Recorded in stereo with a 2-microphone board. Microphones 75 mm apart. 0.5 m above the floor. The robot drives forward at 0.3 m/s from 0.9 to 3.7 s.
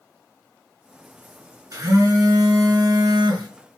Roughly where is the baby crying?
I don't hear a baby crying.